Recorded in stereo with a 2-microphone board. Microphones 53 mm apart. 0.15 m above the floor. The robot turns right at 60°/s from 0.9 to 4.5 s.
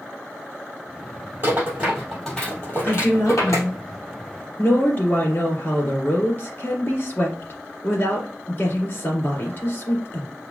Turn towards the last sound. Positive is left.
turn(degrees=130)